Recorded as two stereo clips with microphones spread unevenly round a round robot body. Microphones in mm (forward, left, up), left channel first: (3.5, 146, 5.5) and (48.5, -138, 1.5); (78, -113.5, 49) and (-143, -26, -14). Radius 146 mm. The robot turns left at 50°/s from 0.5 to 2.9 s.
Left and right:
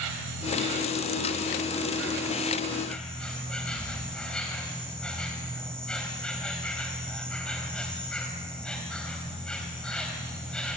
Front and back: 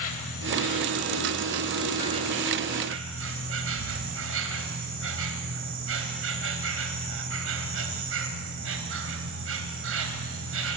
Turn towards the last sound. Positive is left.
turn(degrees=-175)